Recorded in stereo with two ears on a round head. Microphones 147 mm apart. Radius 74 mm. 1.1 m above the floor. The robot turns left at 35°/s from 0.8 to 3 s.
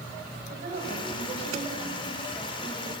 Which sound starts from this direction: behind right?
A woman speaking, at 0.5 s.